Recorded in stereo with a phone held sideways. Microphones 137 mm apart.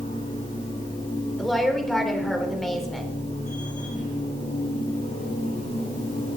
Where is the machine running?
85° left, 7.5 m.